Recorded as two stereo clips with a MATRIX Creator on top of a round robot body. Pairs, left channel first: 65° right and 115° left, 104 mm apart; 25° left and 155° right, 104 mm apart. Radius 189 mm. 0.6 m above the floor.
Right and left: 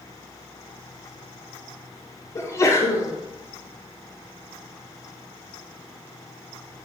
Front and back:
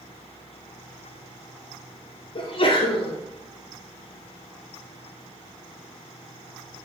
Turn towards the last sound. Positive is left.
turn(degrees=-5)